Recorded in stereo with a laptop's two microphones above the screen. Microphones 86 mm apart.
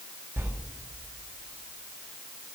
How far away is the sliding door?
About 5.5 m.